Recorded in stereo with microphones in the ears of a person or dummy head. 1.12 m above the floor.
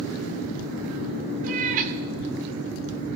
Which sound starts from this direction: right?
A cat meowing, at 1.4 s.